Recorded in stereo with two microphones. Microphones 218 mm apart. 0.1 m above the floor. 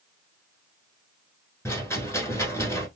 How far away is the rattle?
About 1.2 m.